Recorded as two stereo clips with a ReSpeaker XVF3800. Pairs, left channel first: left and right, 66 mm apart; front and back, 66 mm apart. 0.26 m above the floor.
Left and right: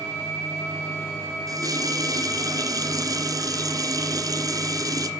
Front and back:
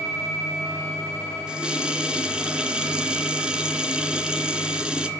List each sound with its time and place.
1.5 s a running tap: 105° right, 2 m